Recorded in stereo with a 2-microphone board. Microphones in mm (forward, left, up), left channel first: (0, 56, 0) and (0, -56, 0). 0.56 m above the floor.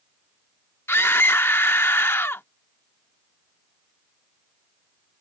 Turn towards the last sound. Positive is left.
turn(degrees=20)  # may be behind; listen again after turning